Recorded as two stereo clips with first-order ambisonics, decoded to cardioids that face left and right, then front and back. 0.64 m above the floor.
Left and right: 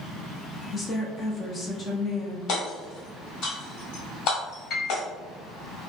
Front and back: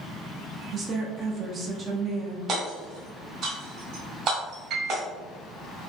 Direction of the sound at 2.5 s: 130° left.